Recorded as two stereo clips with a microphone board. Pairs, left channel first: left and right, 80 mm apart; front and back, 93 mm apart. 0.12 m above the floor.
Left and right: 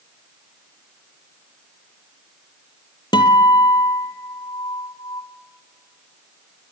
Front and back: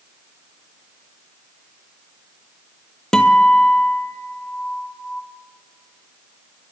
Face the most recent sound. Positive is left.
turn(degrees=80)